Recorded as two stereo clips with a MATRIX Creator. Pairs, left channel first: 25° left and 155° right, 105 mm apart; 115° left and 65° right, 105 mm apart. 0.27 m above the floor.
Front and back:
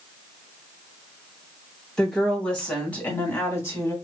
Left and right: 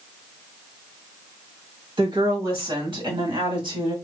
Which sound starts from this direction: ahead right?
A woman speaking, at 2.0 s.